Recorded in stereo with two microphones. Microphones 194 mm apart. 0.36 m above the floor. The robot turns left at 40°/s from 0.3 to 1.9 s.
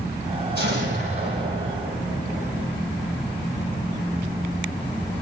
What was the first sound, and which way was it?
An explosion, 120° right.